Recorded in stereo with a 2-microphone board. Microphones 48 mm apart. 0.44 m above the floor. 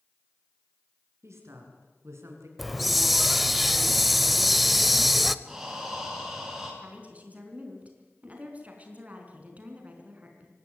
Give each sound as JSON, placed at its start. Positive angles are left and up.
{"t": 1.2, "sound": "a woman speaking", "side_deg": -80, "distance_m": 6.0}
{"t": 2.6, "sound": "a hiss", "side_deg": 0, "distance_m": 0.8}
{"t": 5.5, "sound": "breathing", "side_deg": -5, "distance_m": 5.5}
{"t": 6.8, "sound": "a woman speaking", "side_deg": -30, "distance_m": 4.5}